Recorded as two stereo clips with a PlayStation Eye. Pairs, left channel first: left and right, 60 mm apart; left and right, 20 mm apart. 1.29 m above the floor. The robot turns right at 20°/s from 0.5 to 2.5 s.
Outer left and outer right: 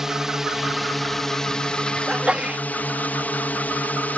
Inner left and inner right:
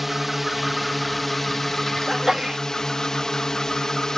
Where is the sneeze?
15° right (ahead or behind); by 2.6 s 20° right (ahead or behind).